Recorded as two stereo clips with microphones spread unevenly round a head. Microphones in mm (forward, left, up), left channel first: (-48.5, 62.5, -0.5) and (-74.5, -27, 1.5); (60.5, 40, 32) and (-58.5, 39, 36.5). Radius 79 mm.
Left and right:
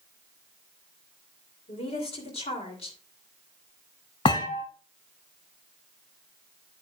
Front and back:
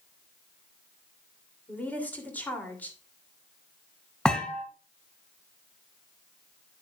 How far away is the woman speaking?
About 2.5 m.